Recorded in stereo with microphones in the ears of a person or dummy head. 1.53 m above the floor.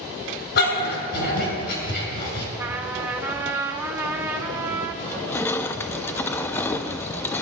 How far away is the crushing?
About 0.7 m.